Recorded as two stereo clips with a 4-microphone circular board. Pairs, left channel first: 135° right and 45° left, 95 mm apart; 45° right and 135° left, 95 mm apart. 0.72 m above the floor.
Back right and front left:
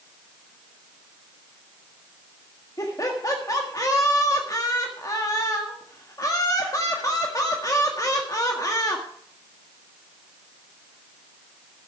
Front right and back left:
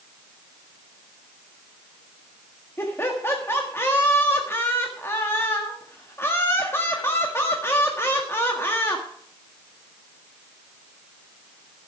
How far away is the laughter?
About 1.6 m.